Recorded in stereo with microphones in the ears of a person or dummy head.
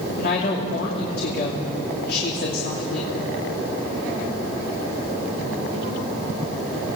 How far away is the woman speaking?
About 3 m.